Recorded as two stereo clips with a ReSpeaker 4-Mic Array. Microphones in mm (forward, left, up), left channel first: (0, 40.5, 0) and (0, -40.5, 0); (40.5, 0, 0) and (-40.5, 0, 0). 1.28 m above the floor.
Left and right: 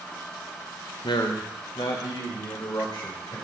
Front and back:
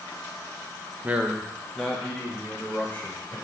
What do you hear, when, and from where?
1.0 s a man speaking: 110° left, 0.8 m; by 3.4 s 65° left, 2.5 m